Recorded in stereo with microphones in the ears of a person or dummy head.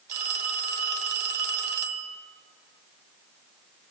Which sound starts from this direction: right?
A phone ringing, at 0.1 s.